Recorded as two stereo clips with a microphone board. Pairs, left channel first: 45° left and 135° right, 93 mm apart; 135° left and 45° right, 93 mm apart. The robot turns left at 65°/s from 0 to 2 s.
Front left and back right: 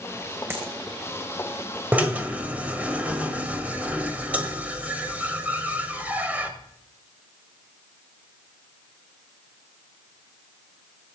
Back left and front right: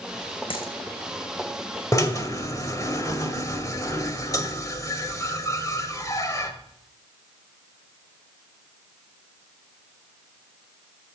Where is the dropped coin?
160° left, 3 m; by 0.7 s 145° left, 3 m.